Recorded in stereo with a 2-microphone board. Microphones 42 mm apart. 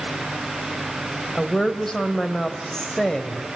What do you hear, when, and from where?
1.4 s a woman speaking: 10° left (ahead or behind), 2 m